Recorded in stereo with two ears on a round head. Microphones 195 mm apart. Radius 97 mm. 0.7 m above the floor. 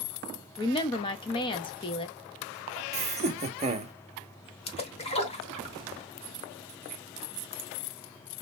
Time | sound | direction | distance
0.6 | a woman speaking | 25° left (ahead or behind) | 0.5 m
2.9 | laughter | 30° right (ahead or behind) | 0.8 m
4.7 | a splash | 30° left (ahead or behind) | 1.2 m